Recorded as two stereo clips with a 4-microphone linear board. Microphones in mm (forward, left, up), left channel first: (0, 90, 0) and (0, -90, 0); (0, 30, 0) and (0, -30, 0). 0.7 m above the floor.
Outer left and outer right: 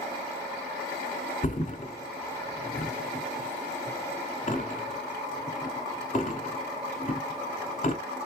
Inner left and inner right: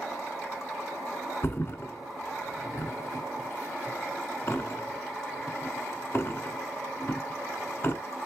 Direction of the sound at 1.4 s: 45° left (ahead or behind).